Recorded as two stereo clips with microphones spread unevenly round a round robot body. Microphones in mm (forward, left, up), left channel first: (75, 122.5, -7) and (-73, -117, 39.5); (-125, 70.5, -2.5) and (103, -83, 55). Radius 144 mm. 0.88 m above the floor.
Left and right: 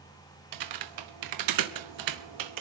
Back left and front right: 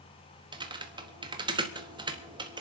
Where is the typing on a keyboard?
110° right, 1.1 m.